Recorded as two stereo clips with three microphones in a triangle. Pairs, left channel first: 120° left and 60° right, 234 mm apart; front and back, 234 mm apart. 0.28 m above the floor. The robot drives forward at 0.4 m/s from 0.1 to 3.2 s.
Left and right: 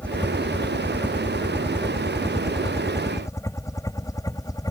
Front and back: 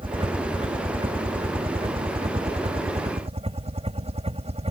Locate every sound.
0.0 s a helicopter: 165° right; by 4.7 s 175° left